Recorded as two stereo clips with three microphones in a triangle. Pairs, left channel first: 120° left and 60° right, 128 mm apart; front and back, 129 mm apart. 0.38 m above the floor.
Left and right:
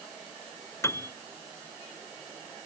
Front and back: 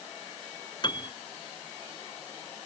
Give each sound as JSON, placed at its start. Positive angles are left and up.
{"t": 0.8, "sound": "a piano", "azimuth_deg": 50}